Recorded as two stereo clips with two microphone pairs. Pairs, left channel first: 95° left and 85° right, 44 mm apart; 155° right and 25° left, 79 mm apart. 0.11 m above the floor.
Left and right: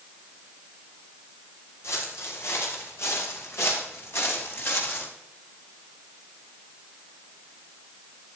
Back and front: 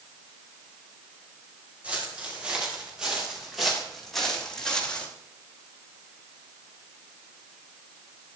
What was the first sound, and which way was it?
Footsteps, 100° left.